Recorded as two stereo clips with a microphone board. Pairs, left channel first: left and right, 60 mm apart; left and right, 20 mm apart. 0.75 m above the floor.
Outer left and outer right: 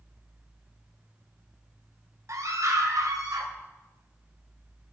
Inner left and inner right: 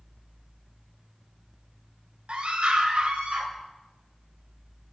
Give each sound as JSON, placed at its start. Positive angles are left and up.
{"t": 2.3, "sound": "a scream", "side_deg": -60, "distance_m": 2.5}